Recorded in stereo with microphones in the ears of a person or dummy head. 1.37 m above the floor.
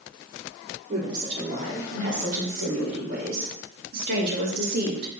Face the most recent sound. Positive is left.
turn(degrees=-60)  # may be behind; listen again after turning